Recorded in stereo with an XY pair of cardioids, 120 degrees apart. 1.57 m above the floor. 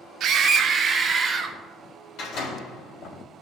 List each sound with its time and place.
0.2 s a scream: 60° right, 1.1 m; by 1.6 s 30° right, 2 m
2.2 s a door slam: 65° left, 3.5 m